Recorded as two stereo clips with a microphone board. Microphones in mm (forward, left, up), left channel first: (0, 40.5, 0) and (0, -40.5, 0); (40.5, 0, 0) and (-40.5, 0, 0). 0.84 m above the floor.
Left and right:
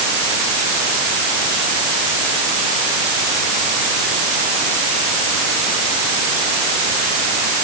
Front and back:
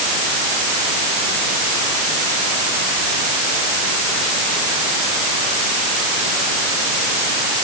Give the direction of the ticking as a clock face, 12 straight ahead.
No ticking in this recording.